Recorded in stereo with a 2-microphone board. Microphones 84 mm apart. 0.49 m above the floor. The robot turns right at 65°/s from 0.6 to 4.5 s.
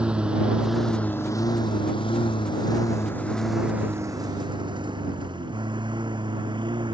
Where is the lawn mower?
10° right (ahead or behind); by 7.0 s 70° right (ahead or behind).